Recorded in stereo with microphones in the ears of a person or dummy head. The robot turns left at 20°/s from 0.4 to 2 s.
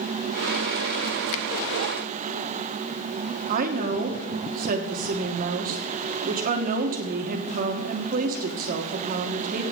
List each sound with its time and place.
1.3 s a finger snap: 70° left (ahead or behind), 0.6 m
3.5 s a woman speaking: 45° right (ahead or behind), 1.4 m